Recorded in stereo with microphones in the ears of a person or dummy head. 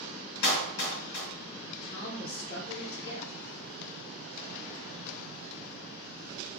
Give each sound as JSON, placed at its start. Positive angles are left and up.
{"t": 0.4, "sound": "a clap", "side_deg": 80, "distance_m": 1.4}
{"t": 1.8, "sound": "a woman speaking", "side_deg": 25, "distance_m": 0.6}